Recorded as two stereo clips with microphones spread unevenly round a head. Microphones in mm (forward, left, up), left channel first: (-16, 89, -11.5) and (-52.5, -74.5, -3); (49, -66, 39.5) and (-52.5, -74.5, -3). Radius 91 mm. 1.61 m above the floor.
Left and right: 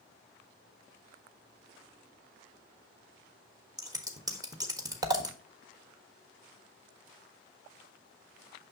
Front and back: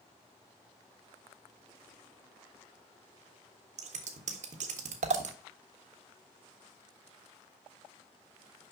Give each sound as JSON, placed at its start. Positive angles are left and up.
{"t": 3.8, "sound": "scissors", "azimuth_deg": -165, "distance_m": 1.4}